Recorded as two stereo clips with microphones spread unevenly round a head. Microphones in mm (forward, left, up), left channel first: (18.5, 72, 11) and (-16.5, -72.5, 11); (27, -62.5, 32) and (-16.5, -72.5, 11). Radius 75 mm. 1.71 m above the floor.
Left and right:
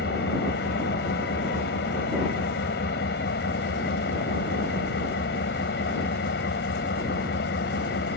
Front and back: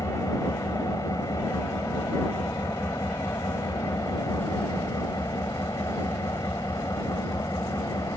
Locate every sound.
0.0 s an engine running: 55° left